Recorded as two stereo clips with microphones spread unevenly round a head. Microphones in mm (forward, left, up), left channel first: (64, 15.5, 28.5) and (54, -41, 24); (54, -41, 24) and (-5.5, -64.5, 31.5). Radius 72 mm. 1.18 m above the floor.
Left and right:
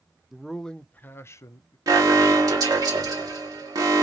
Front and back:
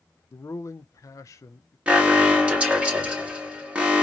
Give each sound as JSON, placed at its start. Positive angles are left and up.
{"t": 0.3, "sound": "a man speaking", "azimuth_deg": -20, "distance_m": 0.8}
{"t": 1.9, "sound": "an alarm", "azimuth_deg": -90, "distance_m": 1.3}